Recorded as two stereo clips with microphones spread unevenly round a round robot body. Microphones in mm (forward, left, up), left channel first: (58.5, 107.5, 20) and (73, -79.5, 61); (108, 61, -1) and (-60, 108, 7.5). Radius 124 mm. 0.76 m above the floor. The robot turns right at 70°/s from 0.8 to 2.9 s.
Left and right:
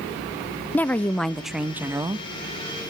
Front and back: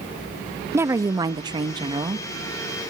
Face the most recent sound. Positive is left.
turn(degrees=-105)